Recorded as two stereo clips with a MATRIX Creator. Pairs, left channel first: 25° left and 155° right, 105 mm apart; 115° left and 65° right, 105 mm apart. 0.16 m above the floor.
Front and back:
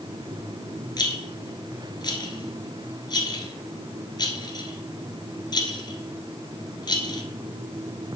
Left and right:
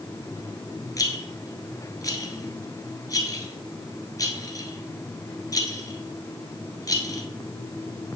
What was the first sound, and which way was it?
A rattle, 60° left.